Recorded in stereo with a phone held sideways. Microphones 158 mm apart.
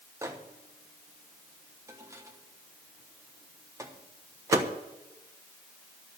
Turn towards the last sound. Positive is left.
turn(degrees=-20)  # may be behind; listen again after turning